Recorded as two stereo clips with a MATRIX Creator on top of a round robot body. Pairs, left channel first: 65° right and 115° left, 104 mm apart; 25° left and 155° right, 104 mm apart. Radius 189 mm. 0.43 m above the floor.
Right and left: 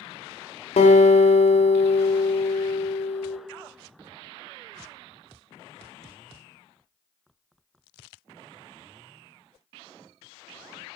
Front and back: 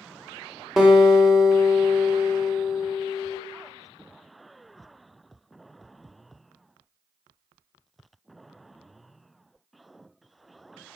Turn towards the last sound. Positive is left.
turn(degrees=-75)